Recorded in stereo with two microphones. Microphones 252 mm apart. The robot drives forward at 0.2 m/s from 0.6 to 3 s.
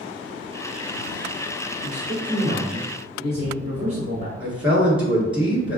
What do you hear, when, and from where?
1.8 s a man speaking: 35° right (ahead or behind), 1.4 m; by 4.3 s 30° right (ahead or behind), 1.5 m
4.4 s a man speaking: 5° right (ahead or behind), 1.8 m